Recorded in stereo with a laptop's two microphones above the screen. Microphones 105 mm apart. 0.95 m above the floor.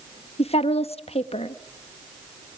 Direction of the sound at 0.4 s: 75° left (ahead or behind).